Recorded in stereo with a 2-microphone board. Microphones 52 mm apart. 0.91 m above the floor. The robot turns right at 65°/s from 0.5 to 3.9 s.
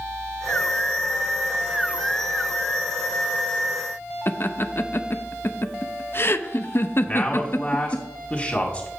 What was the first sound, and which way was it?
Laughter, 45° left (ahead or behind).